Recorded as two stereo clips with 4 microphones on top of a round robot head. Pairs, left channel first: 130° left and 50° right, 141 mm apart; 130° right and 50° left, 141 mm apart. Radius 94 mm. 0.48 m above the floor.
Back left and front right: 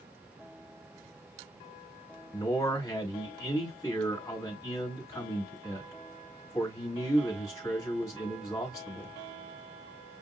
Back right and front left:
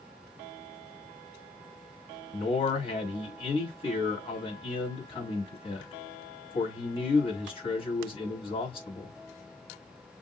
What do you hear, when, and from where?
2.3 s a man speaking: 165° right, 1.8 m